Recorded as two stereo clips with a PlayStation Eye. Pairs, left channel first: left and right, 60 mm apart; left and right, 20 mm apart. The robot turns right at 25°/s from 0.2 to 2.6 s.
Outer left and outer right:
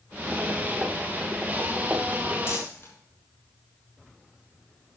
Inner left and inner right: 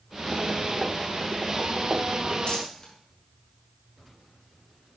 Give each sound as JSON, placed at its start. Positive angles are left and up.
{"t": 2.5, "sound": "crumpling", "side_deg": 50, "distance_m": 4.0}